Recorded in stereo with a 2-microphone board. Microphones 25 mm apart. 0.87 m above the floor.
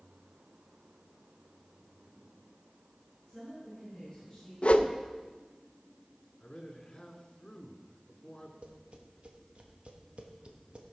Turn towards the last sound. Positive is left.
turn(degrees=-55)  # may be behind; listen again after turning